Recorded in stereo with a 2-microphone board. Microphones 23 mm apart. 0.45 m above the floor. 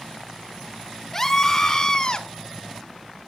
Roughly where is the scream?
Centre.